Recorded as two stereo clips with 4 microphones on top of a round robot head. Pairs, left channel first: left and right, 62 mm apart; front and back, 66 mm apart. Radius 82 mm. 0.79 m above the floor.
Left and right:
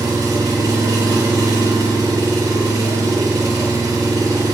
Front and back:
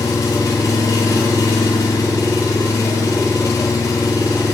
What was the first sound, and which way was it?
An engine running, 50° right.